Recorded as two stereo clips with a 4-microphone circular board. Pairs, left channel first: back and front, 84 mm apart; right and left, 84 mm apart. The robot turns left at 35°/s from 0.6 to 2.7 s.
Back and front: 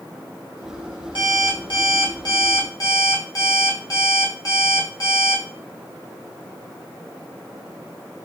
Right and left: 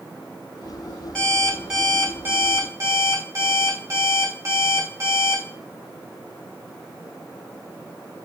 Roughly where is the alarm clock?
Behind.